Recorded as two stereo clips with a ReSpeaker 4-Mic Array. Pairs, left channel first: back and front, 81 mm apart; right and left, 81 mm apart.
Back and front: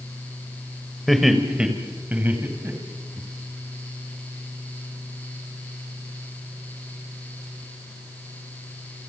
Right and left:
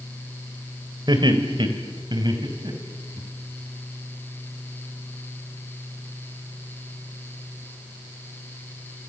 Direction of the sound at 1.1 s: 90° left.